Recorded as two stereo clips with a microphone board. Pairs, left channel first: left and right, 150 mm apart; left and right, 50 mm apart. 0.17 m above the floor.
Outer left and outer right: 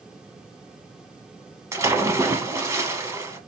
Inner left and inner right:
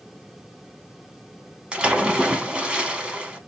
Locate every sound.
1.7 s a splash: 20° right (ahead or behind), 0.9 m